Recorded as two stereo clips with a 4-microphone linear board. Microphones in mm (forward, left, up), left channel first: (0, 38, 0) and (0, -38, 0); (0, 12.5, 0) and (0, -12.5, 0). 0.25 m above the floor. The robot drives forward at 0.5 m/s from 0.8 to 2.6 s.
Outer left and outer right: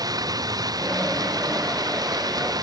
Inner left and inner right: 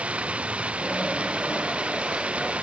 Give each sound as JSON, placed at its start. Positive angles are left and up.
{"t": 0.0, "sound": "running water", "side_deg": -55}